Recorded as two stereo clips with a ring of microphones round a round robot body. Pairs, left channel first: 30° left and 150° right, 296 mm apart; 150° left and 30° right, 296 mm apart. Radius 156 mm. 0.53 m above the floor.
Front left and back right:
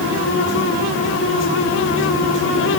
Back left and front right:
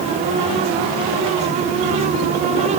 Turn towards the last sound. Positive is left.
No sound to turn to.